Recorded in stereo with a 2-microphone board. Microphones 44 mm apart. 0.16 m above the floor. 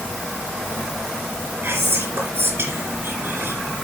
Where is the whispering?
55° right (ahead or behind), 2.5 m.